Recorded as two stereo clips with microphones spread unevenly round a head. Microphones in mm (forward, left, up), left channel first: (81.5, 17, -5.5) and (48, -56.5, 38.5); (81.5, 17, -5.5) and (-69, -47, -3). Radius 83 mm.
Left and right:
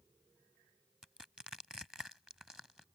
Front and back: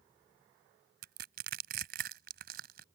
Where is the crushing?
170° left.